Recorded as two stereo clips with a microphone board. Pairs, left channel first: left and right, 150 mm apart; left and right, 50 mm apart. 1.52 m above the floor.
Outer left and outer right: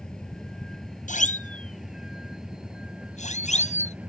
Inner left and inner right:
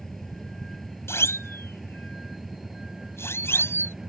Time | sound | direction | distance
0.0 | a vehicle | 5° left (ahead or behind) | ?
1.1 | a siren | 60° left (ahead or behind) | ?